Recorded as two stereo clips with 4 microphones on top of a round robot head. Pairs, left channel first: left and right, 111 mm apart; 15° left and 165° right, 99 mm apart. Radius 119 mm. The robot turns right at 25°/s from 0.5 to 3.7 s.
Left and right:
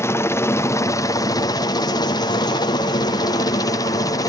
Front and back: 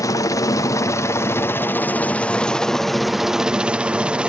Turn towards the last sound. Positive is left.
turn(degrees=120)